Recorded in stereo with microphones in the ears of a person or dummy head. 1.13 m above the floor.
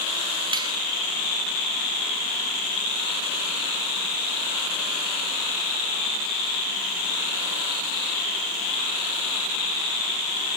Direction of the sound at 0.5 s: 25° right (ahead or behind).